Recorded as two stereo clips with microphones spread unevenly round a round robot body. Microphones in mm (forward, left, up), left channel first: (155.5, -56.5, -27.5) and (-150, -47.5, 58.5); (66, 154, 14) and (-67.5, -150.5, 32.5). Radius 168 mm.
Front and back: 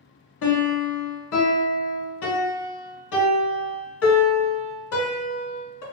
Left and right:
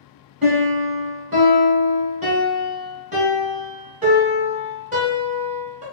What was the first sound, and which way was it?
A piano, 45° right.